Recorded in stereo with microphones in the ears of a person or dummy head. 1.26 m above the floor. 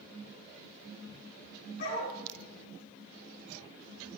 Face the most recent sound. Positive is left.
turn(degrees=50)  # may be behind; listen again after turning